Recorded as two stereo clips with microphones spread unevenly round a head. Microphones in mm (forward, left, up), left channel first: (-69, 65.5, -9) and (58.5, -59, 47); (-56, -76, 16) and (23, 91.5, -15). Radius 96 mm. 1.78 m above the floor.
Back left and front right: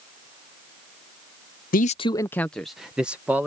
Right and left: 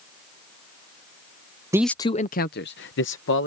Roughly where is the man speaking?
Behind left.